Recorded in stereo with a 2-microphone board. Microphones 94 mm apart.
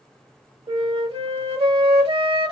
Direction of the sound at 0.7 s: 75° right (ahead or behind).